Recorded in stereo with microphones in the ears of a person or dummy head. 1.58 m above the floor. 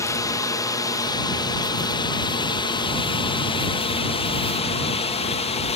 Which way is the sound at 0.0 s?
15° left (ahead or behind).